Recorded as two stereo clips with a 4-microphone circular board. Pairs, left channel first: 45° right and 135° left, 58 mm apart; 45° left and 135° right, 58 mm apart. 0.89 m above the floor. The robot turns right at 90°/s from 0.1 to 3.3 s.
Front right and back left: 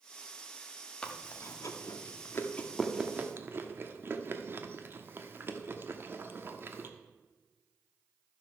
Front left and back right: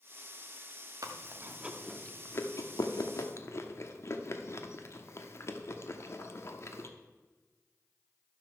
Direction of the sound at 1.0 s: 120° right.